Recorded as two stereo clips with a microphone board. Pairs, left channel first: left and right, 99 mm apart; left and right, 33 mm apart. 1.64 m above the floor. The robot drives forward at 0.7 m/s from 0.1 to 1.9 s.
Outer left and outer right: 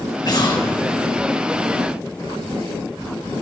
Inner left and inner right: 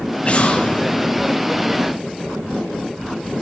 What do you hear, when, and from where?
0.2 s an explosion: 45° left (ahead or behind), 4.5 m; by 1.2 s 50° left (ahead or behind), 4 m